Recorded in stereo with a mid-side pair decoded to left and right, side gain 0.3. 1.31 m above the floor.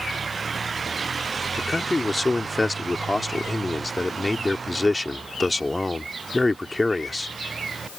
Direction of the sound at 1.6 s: 20° left.